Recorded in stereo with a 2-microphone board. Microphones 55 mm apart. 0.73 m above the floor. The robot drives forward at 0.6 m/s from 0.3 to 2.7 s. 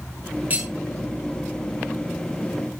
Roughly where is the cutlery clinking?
Right.